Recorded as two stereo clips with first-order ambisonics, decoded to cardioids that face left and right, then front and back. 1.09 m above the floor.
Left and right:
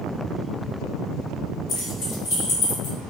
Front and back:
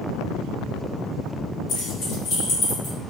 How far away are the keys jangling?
About 1.7 m.